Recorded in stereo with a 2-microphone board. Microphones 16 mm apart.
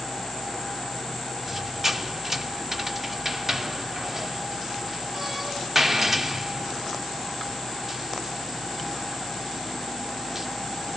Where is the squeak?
25° right (ahead or behind), 0.9 m.